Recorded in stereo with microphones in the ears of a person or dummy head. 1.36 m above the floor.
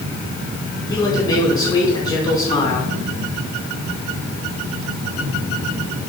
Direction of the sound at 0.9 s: 25° left (ahead or behind).